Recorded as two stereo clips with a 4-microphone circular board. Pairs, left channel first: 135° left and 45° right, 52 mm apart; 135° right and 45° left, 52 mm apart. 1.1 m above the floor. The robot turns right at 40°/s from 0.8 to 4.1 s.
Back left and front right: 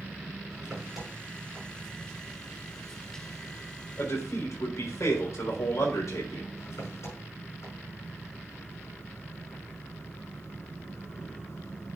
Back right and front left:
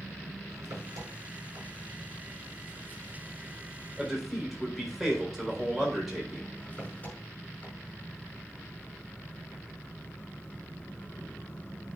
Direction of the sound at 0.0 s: 30° left.